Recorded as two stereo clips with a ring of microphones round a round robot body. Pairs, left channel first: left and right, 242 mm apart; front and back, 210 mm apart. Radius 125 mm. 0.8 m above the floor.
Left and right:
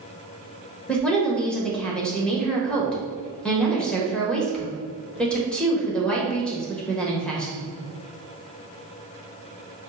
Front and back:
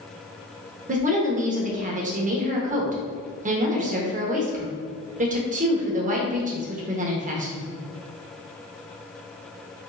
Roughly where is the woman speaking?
Behind.